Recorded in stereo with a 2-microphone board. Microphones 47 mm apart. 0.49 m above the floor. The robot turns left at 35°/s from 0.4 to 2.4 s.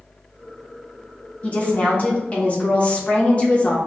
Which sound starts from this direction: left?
A woman speaking, at 1.4 s.